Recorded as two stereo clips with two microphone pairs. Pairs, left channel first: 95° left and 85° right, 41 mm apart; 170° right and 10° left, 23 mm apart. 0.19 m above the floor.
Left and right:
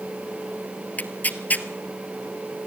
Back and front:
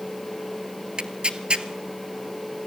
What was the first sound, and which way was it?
Tearing paper, 50° left.